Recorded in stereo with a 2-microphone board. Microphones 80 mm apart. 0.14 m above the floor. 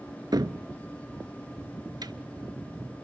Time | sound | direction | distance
0.3 | a cupboard door | 55° right (ahead or behind) | 0.6 m